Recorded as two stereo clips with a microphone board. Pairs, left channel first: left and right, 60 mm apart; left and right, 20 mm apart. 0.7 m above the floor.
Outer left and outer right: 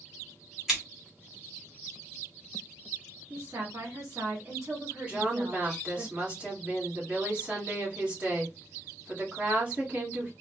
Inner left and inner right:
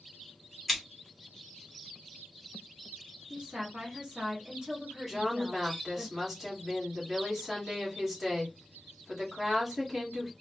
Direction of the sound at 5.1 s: 20° right (ahead or behind).